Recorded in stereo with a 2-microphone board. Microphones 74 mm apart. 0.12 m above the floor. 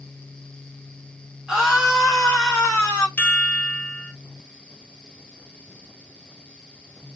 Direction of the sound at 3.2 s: 20° left (ahead or behind).